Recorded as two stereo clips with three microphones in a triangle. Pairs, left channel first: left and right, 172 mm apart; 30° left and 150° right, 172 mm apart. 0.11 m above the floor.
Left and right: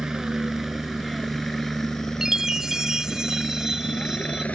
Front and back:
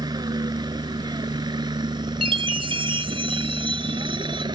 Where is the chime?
175° right.